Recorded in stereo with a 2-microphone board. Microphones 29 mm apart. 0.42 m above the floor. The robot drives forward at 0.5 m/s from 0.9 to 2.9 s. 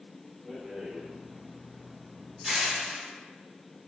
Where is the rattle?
5° right (ahead or behind), 1.0 m.